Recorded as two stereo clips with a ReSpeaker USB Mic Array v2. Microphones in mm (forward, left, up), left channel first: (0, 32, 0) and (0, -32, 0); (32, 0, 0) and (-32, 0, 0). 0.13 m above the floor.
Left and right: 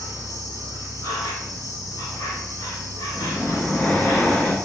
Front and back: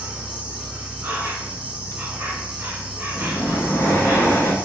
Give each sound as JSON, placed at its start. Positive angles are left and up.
{"t": 0.0, "sound": "an insect", "azimuth_deg": 110, "distance_m": 0.8}
{"t": 3.1, "sound": "breathing", "azimuth_deg": 40, "distance_m": 0.5}